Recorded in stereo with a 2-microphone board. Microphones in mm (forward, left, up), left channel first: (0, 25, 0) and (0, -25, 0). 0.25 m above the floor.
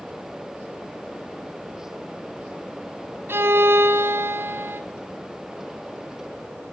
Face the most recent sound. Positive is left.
turn(degrees=-50)  # may be behind; listen again after turning